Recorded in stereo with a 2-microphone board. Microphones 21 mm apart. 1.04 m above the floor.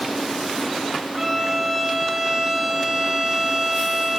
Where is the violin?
15° right (ahead or behind), 0.7 m.